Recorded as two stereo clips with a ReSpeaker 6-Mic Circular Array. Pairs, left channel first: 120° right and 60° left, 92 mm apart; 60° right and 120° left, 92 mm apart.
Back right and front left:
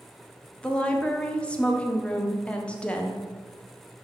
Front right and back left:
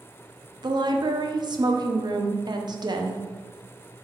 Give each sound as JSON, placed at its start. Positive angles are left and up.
{"t": 0.6, "sound": "a woman speaking", "azimuth_deg": 160, "distance_m": 0.8}